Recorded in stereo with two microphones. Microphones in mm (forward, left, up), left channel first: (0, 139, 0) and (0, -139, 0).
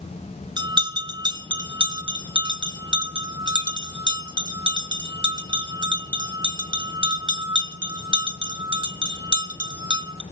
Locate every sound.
0.6 s a bell: 15° right (ahead or behind), 1.0 m